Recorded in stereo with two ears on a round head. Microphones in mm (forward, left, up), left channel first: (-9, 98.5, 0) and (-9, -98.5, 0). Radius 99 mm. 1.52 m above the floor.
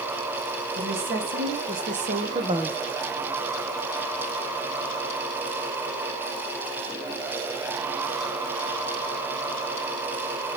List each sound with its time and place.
0.8 s a woman speaking: 45° right (ahead or behind), 2.5 m; by 2.8 s 5° right (ahead or behind), 0.6 m